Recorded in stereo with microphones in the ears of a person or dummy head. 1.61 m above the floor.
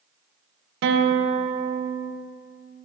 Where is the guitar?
60° right (ahead or behind), 0.6 m.